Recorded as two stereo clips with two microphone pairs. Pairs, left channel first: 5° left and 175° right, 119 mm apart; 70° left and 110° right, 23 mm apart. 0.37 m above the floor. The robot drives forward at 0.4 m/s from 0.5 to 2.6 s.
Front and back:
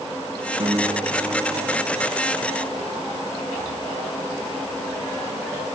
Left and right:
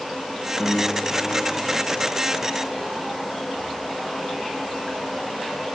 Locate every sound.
0.6 s a piano: 140° left, 0.6 m; by 2.0 s 160° left, 1.1 m